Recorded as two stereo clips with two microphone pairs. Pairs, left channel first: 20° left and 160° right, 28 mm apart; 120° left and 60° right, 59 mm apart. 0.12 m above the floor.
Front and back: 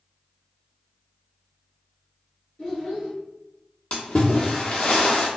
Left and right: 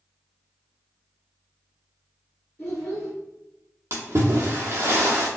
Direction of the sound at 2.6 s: 55° left.